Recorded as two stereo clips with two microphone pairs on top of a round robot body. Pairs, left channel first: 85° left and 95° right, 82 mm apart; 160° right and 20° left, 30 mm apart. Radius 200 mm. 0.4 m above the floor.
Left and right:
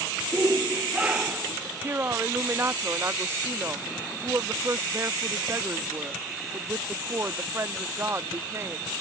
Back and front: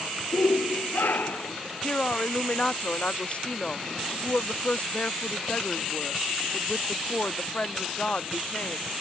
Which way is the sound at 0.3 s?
170° right.